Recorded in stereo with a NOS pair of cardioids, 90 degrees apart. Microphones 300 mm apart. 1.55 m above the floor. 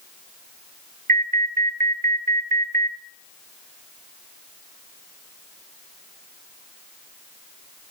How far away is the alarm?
About 1.4 m.